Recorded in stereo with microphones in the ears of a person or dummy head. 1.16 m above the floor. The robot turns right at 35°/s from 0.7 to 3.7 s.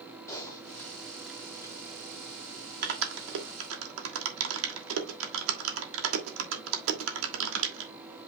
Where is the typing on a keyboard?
15° left (ahead or behind), 1.4 m; by 7.9 s 75° right (ahead or behind), 1.4 m.